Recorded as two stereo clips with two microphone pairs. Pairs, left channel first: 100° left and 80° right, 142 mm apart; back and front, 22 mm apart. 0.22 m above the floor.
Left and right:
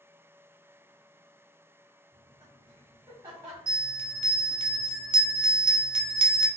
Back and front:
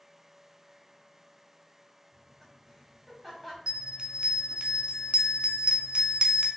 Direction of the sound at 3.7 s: 30° right.